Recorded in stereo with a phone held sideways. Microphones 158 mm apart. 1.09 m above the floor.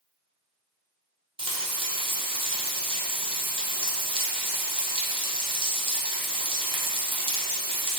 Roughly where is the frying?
Right.